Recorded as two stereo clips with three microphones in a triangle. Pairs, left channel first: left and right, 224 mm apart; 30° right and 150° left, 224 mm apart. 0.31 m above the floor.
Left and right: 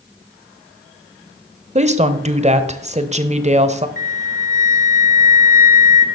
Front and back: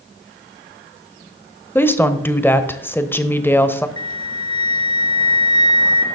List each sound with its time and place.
1.8 s a woman speaking: 105° right, 0.9 m
4.0 s a flute: 35° left, 1.4 m